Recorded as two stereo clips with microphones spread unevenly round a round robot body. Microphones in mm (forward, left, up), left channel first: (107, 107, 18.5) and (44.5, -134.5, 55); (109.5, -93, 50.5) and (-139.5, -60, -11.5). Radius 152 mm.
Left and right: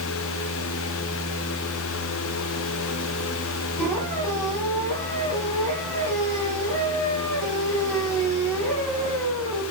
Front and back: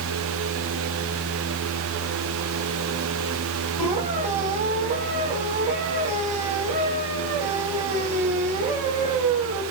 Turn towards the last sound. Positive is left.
turn(degrees=-125)